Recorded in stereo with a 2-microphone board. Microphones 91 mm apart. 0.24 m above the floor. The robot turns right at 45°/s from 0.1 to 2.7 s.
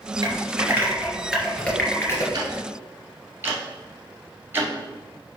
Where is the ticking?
40° right (ahead or behind), 1.6 m; by 5.4 s 25° right (ahead or behind), 1.6 m.